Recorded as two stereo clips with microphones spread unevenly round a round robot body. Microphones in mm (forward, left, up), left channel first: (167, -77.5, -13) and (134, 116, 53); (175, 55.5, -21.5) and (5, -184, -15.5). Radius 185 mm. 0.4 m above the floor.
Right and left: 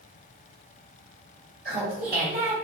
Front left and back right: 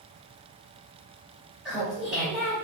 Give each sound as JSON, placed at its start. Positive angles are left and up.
{"t": 1.6, "sound": "laughter", "azimuth_deg": 145, "distance_m": 1.2}